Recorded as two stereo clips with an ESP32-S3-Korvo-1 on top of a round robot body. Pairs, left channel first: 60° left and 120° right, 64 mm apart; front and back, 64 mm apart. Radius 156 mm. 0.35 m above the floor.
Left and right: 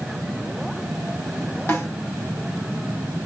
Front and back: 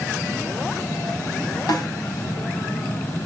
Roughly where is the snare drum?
Ahead.